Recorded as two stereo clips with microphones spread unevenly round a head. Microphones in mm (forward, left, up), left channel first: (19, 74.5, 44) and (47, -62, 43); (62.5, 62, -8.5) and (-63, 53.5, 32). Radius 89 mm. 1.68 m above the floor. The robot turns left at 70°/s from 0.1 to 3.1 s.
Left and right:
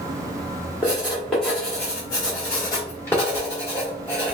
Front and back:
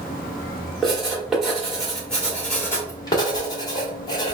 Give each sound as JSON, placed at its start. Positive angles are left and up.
{"t": 0.8, "sound": "writing", "azimuth_deg": -140, "distance_m": 1.4}